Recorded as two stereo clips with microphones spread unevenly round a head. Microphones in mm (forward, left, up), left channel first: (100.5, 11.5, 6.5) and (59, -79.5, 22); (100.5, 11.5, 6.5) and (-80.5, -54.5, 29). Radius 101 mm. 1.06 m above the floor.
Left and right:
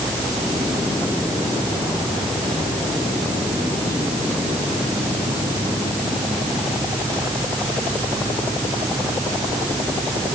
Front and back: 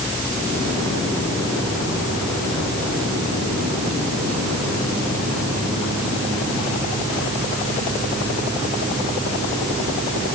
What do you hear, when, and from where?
Only background noise.